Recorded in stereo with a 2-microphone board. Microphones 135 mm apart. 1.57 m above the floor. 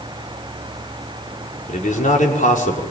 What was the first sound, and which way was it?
A man speaking, 70° left (ahead or behind).